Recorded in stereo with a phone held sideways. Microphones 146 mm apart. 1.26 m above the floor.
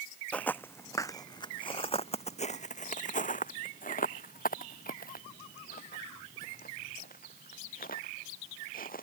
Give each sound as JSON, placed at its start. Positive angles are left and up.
{"t": 0.3, "sound": "footsteps", "side_deg": 10}